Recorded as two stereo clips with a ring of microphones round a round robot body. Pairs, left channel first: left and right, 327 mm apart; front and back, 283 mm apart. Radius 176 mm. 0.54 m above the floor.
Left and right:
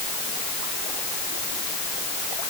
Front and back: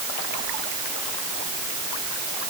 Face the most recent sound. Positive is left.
No sound to turn to.